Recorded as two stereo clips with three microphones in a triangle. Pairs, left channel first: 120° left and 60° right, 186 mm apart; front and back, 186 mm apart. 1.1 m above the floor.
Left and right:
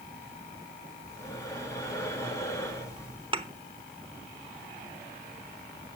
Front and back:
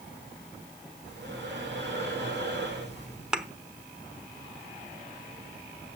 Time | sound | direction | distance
1.1 | breathing | 165° right | 2.5 m
3.3 | a thud | 95° right | 0.8 m